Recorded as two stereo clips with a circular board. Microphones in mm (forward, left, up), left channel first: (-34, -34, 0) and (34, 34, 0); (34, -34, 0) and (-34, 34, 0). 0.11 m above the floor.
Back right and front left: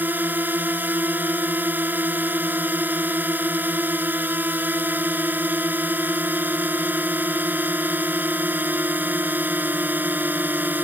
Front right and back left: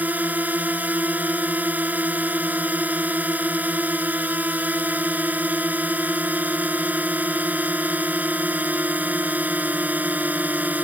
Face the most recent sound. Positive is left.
turn(degrees=90)